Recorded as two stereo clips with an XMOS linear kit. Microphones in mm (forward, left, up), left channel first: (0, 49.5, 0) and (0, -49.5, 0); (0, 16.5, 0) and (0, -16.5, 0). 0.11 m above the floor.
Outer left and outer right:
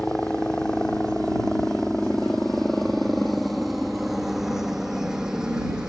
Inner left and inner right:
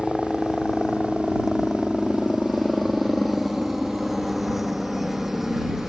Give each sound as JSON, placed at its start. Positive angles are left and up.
{"t": 0.0, "sound": "a helicopter", "side_deg": 10}